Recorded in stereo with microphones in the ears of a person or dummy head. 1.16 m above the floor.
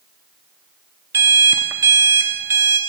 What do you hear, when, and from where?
1.1 s an alarm clock: 10° right (ahead or behind), 0.7 m